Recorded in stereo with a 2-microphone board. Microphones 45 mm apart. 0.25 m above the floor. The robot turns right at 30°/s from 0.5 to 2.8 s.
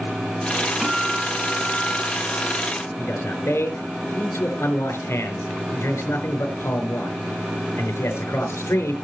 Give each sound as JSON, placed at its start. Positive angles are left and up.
{"t": 0.8, "sound": "a guitar", "azimuth_deg": 0, "distance_m": 2.5}
{"t": 3.0, "sound": "a man speaking", "side_deg": 70, "distance_m": 4.0}